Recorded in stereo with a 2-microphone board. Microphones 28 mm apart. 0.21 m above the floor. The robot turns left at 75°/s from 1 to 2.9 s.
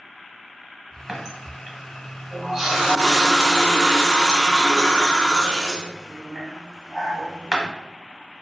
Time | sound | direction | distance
1.1 | a running tap | 10° right (ahead or behind) | 0.7 m